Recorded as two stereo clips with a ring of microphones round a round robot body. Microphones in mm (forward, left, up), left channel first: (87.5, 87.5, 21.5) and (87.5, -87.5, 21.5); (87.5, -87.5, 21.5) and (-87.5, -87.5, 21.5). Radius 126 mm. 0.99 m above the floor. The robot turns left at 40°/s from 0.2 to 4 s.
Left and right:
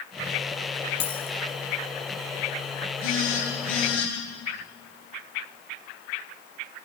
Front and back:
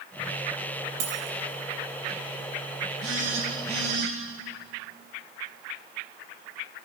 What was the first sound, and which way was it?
A dropped coin, 140° left.